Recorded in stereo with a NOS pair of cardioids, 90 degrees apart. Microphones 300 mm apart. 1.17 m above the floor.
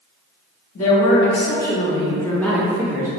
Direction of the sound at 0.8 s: 60° left.